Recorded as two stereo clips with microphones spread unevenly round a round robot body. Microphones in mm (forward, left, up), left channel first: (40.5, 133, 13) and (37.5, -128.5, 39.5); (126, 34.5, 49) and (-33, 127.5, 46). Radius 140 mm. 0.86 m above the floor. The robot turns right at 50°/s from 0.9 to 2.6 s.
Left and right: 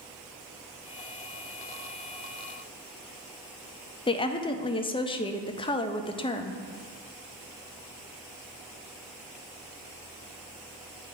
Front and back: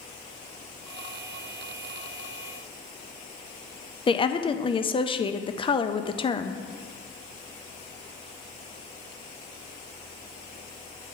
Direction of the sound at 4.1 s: 30° left.